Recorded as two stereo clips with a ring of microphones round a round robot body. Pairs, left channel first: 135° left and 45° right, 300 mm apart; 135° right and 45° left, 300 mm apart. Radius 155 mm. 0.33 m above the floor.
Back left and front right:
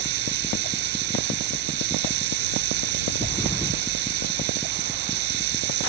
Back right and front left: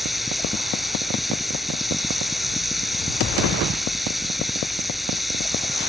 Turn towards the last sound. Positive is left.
turn(degrees=-45)